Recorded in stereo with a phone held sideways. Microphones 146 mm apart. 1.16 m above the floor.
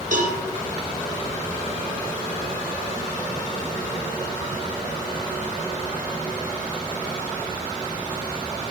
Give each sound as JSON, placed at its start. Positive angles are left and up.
{"t": 0.1, "sound": "a cowbell", "side_deg": -60, "distance_m": 0.8}